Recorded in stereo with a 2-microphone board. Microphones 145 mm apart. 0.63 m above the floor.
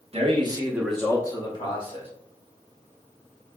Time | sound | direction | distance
0.1 | a man speaking | 45° right (ahead or behind) | 0.9 m